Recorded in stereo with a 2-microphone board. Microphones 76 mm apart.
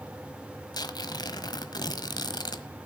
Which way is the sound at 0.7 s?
65° left (ahead or behind).